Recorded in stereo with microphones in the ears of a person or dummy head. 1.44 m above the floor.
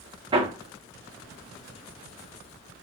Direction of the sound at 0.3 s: 25° right (ahead or behind).